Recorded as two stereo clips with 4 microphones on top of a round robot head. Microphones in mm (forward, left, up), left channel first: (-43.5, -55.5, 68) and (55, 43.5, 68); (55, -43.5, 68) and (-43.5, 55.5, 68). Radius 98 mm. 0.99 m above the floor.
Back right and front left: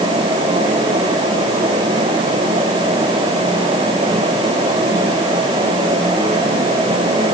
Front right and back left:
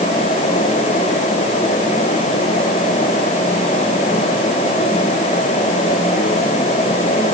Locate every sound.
Only background noise.